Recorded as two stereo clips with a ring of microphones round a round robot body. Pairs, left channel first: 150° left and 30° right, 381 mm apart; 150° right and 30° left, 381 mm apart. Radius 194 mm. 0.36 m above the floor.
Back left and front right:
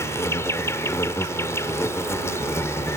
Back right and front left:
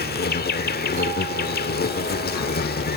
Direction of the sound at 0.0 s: 135° right.